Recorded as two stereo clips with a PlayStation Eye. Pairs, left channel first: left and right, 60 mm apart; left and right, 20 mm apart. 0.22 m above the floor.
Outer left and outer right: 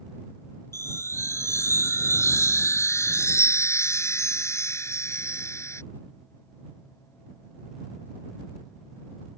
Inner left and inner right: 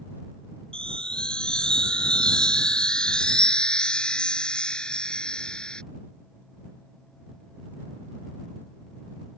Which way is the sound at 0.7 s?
45° left (ahead or behind).